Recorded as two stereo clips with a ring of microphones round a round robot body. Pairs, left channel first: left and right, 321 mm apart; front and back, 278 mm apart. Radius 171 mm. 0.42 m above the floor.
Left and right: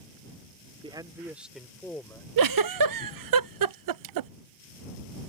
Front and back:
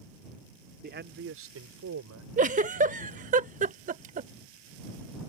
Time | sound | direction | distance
0.8 | a man speaking | 155° right | ?
2.4 | a giggle | 115° right | ?